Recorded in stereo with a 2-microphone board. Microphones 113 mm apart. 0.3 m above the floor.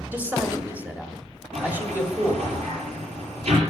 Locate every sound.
0.1 s a man speaking: 15° right (ahead or behind), 1.6 m
1.5 s a sliding door: 75° right (ahead or behind), 5.5 m